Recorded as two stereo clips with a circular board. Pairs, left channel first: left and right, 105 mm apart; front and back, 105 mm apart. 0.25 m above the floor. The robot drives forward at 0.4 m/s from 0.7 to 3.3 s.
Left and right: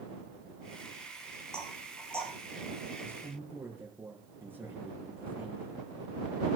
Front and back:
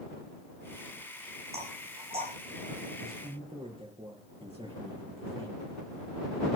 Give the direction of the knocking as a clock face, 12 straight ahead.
6 o'clock.